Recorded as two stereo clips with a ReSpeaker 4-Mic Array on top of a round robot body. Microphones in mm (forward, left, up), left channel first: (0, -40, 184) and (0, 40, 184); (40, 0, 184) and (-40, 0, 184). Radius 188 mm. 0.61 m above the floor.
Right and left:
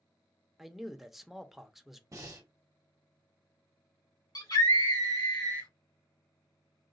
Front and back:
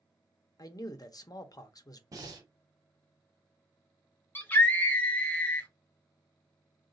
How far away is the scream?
About 2.0 m.